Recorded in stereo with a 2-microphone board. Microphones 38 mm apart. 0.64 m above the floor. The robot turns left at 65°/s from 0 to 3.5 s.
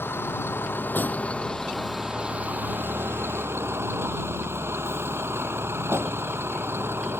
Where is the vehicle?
70° left (ahead or behind); by 7.2 s 70° right (ahead or behind).